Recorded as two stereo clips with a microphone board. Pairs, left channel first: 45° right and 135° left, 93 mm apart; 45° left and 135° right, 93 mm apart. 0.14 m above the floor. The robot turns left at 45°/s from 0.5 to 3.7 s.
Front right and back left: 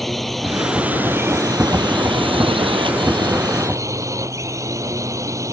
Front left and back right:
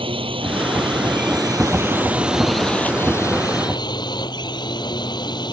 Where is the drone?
135° right; by 5.5 s 80° left.